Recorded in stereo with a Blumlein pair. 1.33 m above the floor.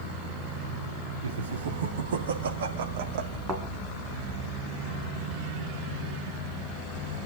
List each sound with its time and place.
1.2 s laughter: 65° right, 3.5 m; by 3.4 s 45° right, 1.6 m
3.5 s a thud: 20° right, 3.5 m